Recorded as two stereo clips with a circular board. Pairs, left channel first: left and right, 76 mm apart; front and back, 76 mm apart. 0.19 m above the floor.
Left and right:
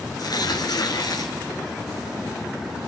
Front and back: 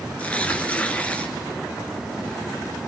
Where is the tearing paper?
70° left, 2.5 m.